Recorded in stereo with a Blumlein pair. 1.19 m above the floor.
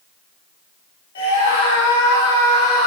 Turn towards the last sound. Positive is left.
turn(degrees=50)